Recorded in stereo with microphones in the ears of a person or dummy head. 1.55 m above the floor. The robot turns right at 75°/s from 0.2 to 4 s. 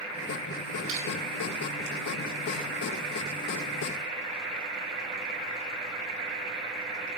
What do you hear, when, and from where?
0.9 s crushing: 45° right (ahead or behind), 1.5 m; by 1.1 s 30° right (ahead or behind), 1.5 m